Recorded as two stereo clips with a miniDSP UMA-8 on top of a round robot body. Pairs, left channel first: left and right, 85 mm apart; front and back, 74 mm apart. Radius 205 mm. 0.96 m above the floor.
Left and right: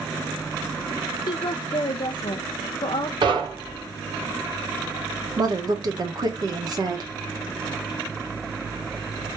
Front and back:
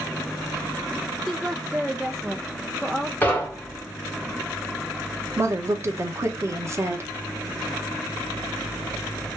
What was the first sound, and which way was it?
A woman speaking, 95° left.